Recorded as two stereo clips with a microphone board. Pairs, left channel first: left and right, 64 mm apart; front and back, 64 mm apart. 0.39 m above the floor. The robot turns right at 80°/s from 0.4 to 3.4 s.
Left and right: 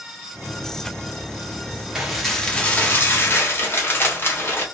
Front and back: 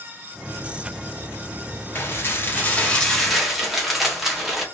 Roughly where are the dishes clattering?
Ahead.